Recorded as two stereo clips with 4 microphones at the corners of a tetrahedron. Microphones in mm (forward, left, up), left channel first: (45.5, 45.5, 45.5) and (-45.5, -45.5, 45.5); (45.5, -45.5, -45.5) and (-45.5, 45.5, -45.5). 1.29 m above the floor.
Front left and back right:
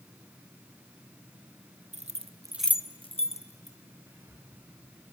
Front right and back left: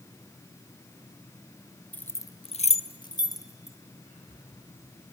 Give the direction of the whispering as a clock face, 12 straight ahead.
2 o'clock.